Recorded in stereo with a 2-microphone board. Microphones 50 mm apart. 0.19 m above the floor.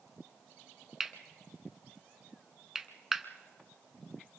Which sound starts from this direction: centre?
Cutlery clinking, at 1.0 s.